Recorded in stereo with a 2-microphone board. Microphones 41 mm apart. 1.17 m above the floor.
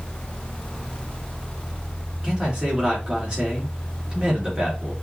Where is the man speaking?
25° right (ahead or behind), 2.5 m.